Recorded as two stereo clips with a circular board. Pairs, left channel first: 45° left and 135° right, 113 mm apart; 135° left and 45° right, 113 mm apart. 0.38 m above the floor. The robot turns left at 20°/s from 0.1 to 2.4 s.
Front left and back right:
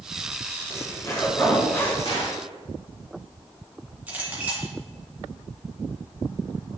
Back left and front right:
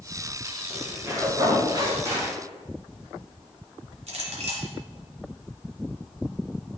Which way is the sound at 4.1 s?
60° right.